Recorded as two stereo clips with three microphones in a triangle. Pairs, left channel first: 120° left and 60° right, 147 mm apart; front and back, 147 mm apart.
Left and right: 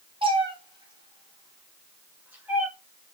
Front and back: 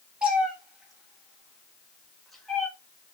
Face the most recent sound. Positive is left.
turn(degrees=-55)